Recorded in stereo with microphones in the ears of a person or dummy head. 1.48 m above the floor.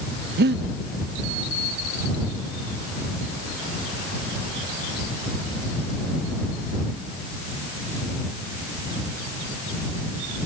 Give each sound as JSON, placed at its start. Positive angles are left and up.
{"t": 0.4, "sound": "breathing", "side_deg": -60}